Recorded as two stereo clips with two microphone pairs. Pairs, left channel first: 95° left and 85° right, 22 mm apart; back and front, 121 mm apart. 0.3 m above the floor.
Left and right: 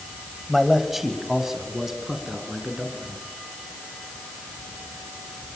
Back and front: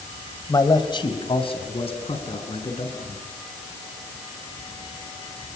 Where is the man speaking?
170° right, 1.8 m; by 3.2 s 155° right, 5 m.